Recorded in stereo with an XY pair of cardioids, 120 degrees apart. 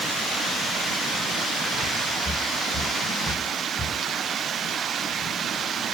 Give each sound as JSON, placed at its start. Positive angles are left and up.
{"t": 2.2, "sound": "footsteps", "azimuth_deg": 0, "distance_m": 7.0}